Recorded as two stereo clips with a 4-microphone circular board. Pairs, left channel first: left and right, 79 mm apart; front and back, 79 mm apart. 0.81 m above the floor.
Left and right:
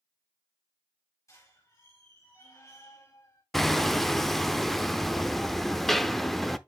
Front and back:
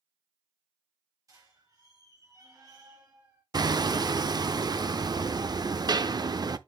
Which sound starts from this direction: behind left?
A squeak, at 1.3 s.